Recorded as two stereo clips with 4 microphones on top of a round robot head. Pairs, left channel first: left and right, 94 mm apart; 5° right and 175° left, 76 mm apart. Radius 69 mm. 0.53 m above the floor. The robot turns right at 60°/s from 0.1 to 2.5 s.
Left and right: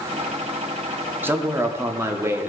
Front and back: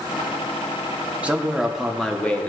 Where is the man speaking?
130° right, 0.8 m; by 2.5 s 55° right, 0.8 m.